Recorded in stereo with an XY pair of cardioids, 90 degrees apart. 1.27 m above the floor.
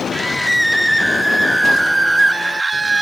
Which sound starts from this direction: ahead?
A scream, at 0.1 s.